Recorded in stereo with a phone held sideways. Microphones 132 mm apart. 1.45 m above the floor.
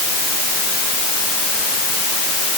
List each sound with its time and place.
Only background noise.